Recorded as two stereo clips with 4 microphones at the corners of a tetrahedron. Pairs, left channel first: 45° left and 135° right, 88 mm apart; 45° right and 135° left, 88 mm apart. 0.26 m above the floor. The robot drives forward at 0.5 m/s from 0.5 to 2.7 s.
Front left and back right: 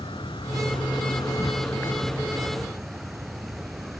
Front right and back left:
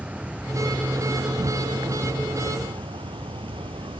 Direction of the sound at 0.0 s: 60° left.